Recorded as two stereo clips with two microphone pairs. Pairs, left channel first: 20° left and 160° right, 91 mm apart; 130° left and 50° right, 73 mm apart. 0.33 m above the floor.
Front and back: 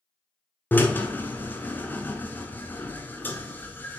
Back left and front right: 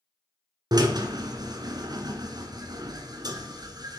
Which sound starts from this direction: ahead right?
A drill, at 0.7 s.